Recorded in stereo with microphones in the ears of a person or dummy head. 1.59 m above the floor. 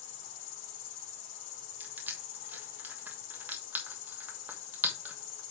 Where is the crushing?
10° right (ahead or behind), 1.1 m.